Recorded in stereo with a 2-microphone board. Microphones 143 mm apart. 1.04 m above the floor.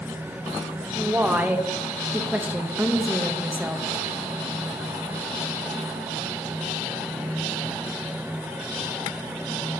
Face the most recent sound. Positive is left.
turn(degrees=-10)  # may be behind; listen again after turning